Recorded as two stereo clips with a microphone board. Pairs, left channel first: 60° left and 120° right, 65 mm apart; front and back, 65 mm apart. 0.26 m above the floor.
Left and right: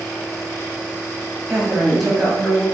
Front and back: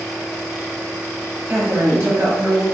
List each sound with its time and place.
1.5 s a woman speaking: straight behind, 1.2 m; by 2.6 s 125° left, 1.7 m